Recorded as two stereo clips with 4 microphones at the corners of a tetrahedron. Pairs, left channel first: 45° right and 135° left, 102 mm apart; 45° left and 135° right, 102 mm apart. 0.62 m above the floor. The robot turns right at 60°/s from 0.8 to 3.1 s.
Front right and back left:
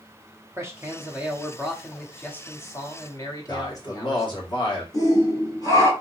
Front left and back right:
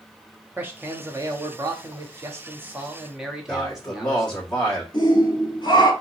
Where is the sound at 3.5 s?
35° right, 1.6 m.